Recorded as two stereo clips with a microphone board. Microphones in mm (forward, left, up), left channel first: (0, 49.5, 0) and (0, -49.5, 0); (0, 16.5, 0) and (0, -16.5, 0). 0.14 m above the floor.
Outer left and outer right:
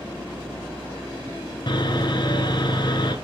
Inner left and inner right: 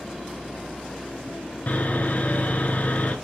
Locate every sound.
1.7 s sawing: 50° left (ahead or behind), 1.5 m